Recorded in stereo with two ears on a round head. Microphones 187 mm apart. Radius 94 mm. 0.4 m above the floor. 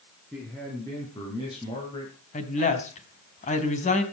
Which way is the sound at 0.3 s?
10° left (ahead or behind).